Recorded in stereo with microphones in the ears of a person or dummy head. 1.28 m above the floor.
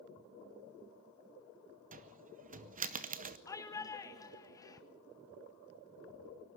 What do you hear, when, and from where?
1.9 s a cupboard door: 45° right (ahead or behind), 0.9 m
3.5 s a shout: 20° left (ahead or behind), 1.7 m